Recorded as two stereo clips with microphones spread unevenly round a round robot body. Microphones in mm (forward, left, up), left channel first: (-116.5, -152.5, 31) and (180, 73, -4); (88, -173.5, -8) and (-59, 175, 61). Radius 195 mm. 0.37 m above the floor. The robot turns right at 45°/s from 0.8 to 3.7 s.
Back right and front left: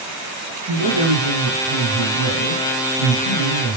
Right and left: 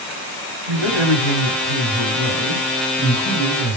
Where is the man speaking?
100° left, 4 m; by 3.8 s 130° right, 4 m.